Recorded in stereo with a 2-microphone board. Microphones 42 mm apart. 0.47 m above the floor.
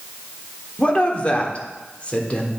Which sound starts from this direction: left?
A woman speaking, at 0.8 s.